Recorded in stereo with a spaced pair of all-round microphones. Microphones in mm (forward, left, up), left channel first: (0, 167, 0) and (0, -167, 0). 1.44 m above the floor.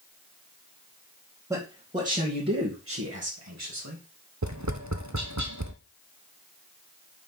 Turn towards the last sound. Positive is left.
turn(degrees=-60)  # may be behind; listen again after turning